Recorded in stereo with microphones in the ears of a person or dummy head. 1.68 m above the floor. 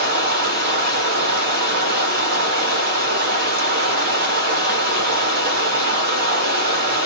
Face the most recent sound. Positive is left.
turn(degrees=-60)  # may be behind; listen again after turning